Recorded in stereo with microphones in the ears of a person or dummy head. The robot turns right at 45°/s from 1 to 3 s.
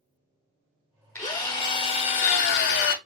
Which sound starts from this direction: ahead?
A drill, at 1.1 s.